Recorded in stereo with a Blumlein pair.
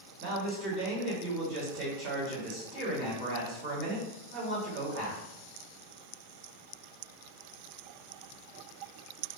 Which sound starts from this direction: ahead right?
A man speaking, at 0.2 s.